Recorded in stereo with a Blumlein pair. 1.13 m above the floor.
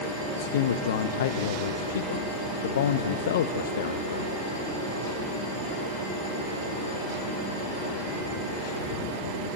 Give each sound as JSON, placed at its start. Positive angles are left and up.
{"t": 0.4, "sound": "a man speaking", "azimuth_deg": 60, "distance_m": 1.1}